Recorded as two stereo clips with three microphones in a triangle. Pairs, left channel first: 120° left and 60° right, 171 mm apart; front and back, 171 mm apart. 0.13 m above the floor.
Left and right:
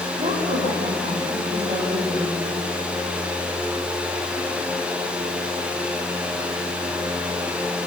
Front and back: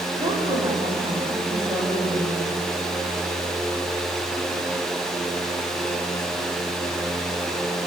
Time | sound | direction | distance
0.2 | a woman speaking | 110° right | 9.5 m